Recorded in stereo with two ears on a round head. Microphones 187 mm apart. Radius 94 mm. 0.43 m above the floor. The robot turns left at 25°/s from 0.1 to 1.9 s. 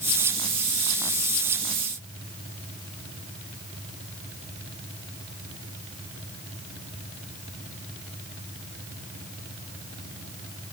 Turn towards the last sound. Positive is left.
No sound to turn to.